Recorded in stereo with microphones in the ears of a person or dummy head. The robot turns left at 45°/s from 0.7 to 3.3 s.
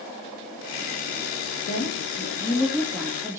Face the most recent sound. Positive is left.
turn(degrees=-15)